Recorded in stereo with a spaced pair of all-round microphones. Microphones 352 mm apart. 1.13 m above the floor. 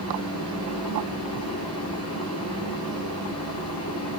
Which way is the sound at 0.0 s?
45° left (ahead or behind).